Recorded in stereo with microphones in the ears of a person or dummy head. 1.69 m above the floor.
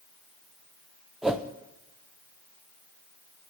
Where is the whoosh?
5° left (ahead or behind), 0.7 m.